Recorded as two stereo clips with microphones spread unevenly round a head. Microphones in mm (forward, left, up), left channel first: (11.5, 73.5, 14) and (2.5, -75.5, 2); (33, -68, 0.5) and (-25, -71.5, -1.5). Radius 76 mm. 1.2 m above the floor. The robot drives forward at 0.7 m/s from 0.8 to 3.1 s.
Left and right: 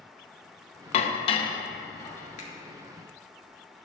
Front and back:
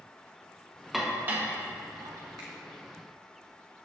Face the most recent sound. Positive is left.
turn(degrees=140)